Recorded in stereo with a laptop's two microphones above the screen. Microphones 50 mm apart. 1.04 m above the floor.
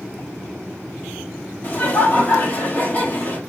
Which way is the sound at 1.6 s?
40° left (ahead or behind).